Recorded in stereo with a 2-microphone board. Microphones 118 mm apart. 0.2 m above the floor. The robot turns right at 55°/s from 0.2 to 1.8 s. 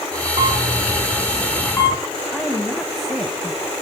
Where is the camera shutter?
45° right (ahead or behind), 2 m; by 2.0 s 30° left (ahead or behind), 2 m.